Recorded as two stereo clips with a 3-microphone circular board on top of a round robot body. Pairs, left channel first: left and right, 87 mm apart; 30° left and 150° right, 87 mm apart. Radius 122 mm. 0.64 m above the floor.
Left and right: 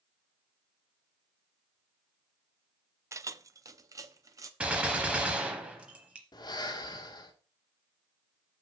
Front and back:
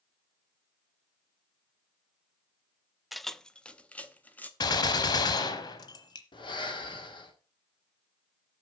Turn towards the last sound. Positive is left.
turn(degrees=55)